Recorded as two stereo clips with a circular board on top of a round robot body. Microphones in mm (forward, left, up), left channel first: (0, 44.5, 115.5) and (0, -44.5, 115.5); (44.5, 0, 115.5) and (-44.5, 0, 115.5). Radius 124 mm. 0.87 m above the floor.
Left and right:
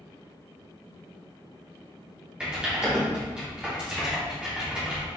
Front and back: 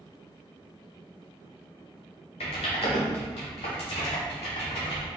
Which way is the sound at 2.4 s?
10° right.